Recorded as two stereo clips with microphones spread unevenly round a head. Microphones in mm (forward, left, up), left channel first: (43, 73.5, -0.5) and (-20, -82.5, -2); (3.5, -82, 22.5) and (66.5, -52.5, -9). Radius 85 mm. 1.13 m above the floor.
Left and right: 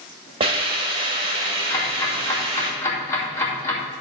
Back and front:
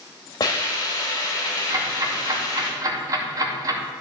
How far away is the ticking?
About 2.5 m.